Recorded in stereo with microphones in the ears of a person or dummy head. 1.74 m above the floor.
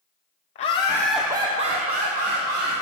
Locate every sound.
0.6 s laughter: 40° left (ahead or behind), 0.9 m; by 2.7 s 65° right (ahead or behind), 1.8 m